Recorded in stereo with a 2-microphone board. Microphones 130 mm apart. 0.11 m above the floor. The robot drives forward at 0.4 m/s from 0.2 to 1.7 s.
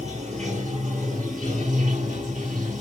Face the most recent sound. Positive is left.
turn(degrees=-60)  # may be behind; listen again after turning